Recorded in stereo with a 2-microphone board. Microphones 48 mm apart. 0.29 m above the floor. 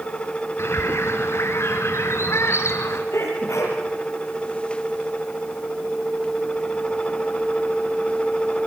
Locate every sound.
0.6 s a bird: 60° left (ahead or behind), 2.5 m
3.1 s a sneeze: 65° left (ahead or behind), 6.5 m